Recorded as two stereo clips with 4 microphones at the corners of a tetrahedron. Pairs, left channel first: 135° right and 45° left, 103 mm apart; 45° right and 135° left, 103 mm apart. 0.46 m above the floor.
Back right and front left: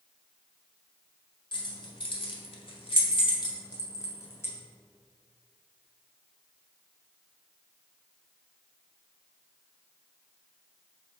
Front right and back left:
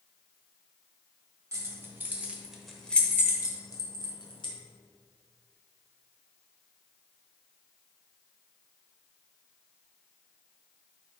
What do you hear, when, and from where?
1.5 s keys jangling: 170° right, 1.5 m; by 4.5 s 70° right, 1.5 m